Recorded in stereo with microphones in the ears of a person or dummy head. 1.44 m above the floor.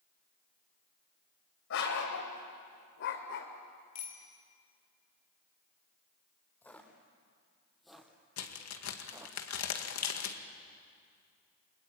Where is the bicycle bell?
40° left (ahead or behind), 3.5 m.